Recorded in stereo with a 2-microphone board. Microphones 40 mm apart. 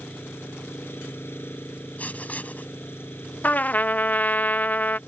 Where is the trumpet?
45° left (ahead or behind).